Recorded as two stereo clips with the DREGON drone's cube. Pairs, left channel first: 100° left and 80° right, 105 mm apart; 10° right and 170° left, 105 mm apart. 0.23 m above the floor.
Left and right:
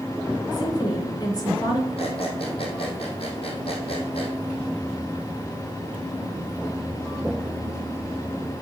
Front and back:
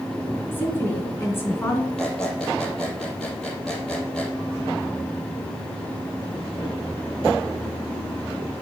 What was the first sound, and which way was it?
A woman speaking, 55° left.